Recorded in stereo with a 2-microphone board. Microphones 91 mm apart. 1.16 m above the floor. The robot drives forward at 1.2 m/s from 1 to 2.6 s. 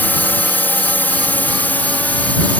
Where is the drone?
20° left (ahead or behind).